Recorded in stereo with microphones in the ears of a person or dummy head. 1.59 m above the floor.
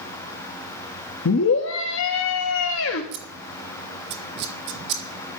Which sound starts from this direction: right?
Scissors, at 3.1 s.